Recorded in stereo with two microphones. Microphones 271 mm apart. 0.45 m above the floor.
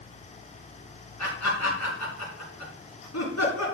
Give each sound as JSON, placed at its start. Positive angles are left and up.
{"t": 1.2, "sound": "laughter", "side_deg": 80, "distance_m": 5.5}